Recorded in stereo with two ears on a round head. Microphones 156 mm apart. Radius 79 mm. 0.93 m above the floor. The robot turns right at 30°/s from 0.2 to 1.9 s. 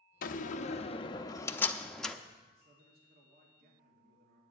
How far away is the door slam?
About 0.7 m.